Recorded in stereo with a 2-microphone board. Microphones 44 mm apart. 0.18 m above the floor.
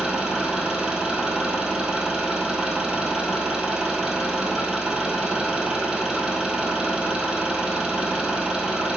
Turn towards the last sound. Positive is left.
turn(degrees=-15)  # may be behind; listen again after turning